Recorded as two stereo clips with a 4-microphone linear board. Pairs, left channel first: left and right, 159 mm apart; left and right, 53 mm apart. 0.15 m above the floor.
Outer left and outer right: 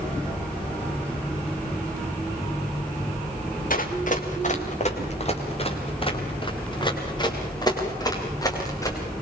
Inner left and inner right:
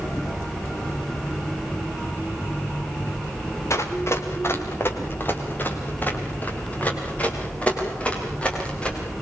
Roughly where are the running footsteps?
Left.